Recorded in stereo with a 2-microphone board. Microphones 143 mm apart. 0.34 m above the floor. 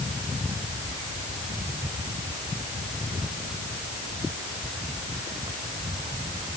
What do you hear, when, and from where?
Only background noise.